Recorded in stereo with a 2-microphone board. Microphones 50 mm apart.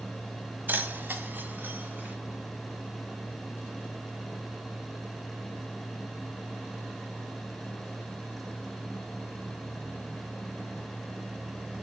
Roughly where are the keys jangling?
Right.